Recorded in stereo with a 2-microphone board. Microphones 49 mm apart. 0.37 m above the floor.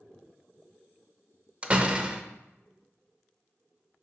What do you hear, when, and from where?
1.6 s a door slam: 25° right (ahead or behind), 0.6 m